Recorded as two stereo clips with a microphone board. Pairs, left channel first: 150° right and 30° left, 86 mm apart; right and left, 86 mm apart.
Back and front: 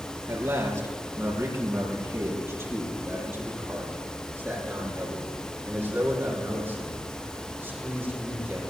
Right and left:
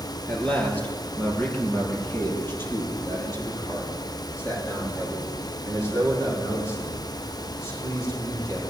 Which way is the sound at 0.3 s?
20° right.